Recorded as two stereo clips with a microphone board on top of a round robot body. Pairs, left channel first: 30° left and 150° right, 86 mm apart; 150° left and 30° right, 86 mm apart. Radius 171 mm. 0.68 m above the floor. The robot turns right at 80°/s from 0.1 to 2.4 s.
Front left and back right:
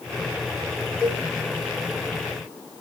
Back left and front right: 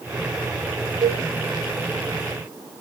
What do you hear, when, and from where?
1.0 s a cowbell: 65° right, 0.5 m; by 1.2 s 45° right, 0.5 m